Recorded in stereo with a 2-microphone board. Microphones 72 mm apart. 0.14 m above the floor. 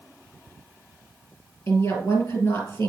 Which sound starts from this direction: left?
A woman speaking, at 1.7 s.